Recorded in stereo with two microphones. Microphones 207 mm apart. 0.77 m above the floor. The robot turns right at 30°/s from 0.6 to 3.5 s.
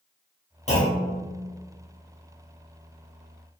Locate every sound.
0.7 s a clunk: 35° left (ahead or behind), 1.0 m; by 1.2 s 40° left (ahead or behind), 1.0 m